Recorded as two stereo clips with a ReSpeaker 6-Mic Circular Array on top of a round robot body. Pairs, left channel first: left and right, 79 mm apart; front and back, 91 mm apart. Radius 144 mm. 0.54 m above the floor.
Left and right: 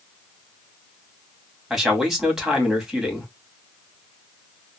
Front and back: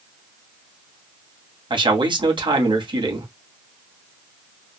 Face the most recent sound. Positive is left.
turn(degrees=-175)